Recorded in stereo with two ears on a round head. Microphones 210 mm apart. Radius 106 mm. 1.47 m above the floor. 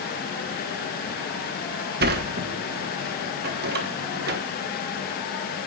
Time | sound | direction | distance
2.0 | a sliding door | 45° right (ahead or behind) | 1.2 m